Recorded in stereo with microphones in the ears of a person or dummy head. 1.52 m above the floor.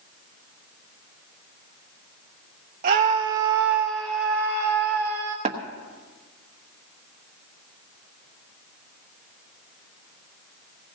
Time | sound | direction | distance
2.8 | a scream | 40° right (ahead or behind) | 0.6 m
5.5 | tapping | 30° right (ahead or behind) | 1.2 m